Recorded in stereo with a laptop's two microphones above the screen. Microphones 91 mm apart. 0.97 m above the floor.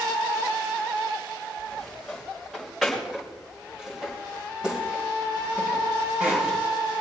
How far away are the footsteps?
About 7.5 m.